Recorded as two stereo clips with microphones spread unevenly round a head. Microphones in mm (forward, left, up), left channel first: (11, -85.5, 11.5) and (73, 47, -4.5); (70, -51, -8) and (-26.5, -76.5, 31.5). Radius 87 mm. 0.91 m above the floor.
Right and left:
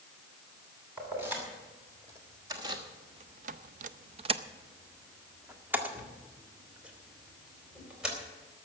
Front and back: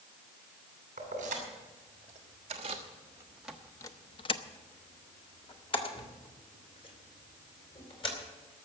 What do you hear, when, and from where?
1.0 s keys jangling: 145° left, 2.5 m; by 8.2 s 20° right, 4 m